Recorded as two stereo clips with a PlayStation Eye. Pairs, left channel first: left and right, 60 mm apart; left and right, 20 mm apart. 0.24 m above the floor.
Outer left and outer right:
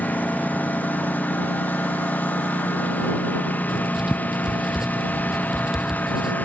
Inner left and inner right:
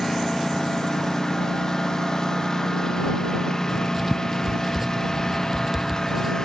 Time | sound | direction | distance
0.0 | a lawn mower | 25° left (ahead or behind) | ?
3.7 | writing | 10° right (ahead or behind) | ?